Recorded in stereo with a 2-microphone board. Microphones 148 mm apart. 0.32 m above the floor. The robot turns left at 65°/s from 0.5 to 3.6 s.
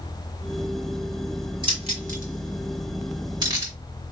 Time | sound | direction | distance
1.6 | keys jangling | 30° right (ahead or behind) | 2.5 m